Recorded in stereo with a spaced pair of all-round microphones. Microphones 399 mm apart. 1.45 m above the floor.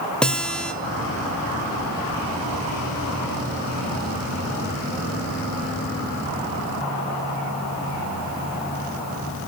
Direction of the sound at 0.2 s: Centre (ahead or behind).